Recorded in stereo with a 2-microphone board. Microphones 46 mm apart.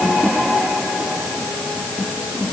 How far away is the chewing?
I don't hear chewing.